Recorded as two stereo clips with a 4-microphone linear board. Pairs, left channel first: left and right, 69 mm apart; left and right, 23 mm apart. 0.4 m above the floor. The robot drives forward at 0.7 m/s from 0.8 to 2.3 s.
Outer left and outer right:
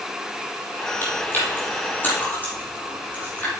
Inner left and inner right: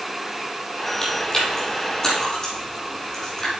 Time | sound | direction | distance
1.0 | chewing | 35° left (ahead or behind) | 4 m